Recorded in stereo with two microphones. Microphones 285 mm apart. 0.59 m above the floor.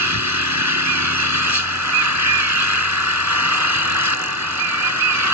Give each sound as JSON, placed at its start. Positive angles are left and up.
{"t": 0.0, "sound": "an engine running", "side_deg": -75}